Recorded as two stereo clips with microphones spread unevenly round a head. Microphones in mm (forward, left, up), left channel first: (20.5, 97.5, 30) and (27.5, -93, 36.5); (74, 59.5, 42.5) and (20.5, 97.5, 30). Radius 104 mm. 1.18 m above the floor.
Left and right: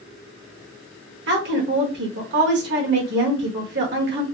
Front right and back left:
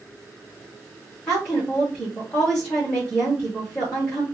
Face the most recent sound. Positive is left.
turn(degrees=-120)